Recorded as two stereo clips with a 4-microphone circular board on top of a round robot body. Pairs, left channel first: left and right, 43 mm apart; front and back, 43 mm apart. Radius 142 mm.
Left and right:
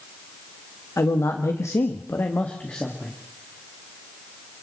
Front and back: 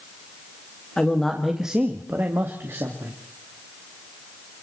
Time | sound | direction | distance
1.0 | a man speaking | 75° left | 1.7 m